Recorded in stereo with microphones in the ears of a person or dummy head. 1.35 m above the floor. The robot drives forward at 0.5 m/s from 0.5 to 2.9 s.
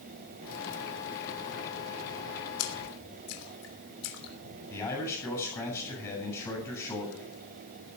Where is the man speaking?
15° left (ahead or behind), 7.5 m.